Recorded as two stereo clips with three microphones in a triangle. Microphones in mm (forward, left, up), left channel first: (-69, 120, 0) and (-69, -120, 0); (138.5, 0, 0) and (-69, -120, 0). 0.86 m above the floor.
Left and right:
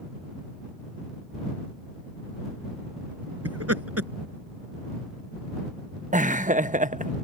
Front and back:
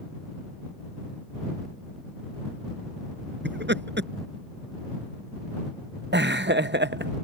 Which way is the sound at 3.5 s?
105° right.